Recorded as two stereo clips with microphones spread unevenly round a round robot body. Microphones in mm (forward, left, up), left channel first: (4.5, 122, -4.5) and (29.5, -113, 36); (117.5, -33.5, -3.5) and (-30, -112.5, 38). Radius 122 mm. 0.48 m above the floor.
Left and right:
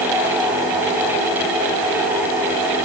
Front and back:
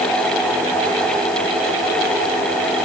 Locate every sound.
Only background noise.